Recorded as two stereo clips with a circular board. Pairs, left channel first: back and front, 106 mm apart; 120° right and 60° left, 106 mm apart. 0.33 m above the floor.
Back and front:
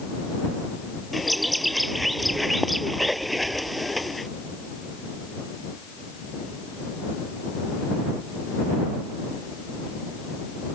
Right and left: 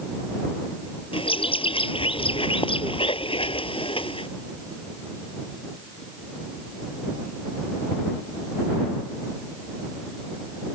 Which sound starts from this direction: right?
A bird, at 1.1 s.